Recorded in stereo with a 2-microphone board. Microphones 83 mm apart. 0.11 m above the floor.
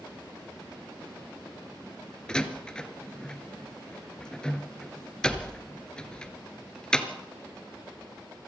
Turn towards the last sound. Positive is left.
turn(degrees=10)  # may be behind; listen again after turning